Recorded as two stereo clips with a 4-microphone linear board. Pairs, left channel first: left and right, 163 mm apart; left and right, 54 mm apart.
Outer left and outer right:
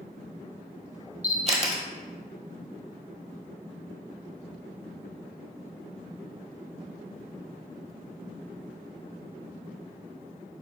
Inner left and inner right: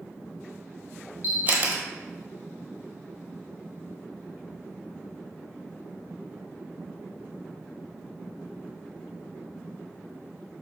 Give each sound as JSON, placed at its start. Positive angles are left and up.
{"t": 1.2, "sound": "a camera shutter", "side_deg": -40, "distance_m": 1.1}